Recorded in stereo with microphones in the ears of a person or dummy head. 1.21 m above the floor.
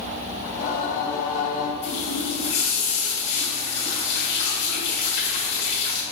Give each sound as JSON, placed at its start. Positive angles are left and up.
{"t": 0.5, "sound": "singing", "side_deg": 45, "distance_m": 1.0}
{"t": 1.8, "sound": "a running tap", "side_deg": 70, "distance_m": 2.5}